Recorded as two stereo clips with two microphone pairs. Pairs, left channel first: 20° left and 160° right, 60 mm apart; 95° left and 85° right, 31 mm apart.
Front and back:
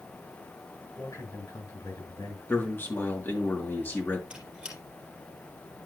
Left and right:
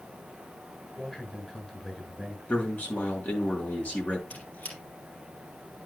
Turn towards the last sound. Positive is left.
turn(degrees=130)